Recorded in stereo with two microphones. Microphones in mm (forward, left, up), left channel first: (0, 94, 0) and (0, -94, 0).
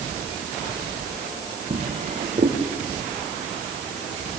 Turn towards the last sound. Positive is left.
turn(degrees=-45)  # may be behind; listen again after turning